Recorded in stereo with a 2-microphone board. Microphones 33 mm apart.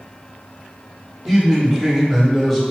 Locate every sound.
1.3 s a man speaking: 15° right (ahead or behind), 1.1 m; by 2.6 s centre (ahead or behind), 1.4 m